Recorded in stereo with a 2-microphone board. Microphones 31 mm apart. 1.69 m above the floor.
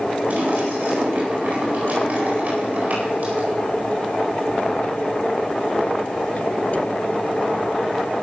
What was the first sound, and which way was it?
A splash, 65° right (ahead or behind).